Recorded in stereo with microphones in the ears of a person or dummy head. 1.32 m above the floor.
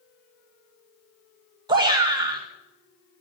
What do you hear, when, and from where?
1.7 s a shout: 20° right (ahead or behind), 1.9 m